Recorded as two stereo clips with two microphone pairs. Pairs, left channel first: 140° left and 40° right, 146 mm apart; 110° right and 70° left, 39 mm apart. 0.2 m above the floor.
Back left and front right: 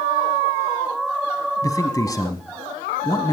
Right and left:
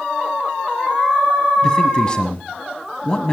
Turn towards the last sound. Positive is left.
turn(degrees=-170)